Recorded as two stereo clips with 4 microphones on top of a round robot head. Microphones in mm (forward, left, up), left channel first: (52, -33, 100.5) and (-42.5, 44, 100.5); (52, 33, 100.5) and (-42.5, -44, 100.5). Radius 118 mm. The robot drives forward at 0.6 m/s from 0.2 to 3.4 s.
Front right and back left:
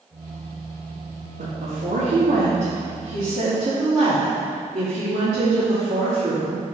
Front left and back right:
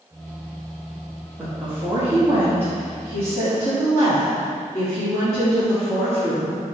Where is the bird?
No bird in this recording.